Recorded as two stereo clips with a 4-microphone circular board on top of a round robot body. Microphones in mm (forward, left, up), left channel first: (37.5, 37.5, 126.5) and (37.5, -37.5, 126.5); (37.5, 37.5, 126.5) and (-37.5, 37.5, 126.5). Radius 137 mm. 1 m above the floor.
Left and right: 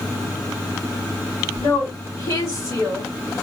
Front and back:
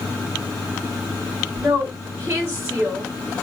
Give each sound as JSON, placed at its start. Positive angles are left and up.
{"t": 1.6, "sound": "a woman speaking", "azimuth_deg": 125, "distance_m": 1.6}